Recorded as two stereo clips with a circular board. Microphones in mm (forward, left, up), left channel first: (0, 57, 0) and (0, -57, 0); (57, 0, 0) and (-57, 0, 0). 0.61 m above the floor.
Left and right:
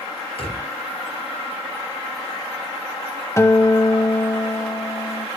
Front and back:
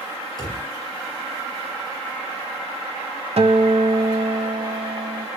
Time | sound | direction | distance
0.4 | a drawer | 125° left | 5 m
3.4 | a guitar | 155° left | 0.8 m